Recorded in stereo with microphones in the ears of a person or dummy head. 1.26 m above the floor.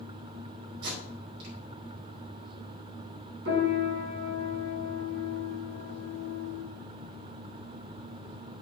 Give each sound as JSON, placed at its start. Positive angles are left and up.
{"t": 0.8, "sound": "tape being pulled", "side_deg": -65, "distance_m": 5.0}
{"t": 3.5, "sound": "a piano", "side_deg": -70, "distance_m": 5.5}